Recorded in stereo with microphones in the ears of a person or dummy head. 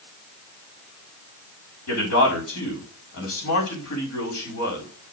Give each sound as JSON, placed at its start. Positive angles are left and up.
{"t": 1.9, "sound": "a man speaking", "side_deg": 70, "distance_m": 4.5}